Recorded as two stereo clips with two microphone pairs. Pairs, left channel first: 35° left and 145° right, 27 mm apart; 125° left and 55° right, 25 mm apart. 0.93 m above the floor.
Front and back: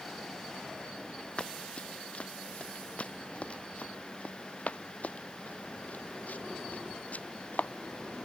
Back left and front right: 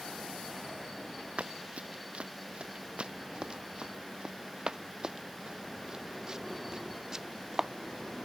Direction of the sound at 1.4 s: 15° right.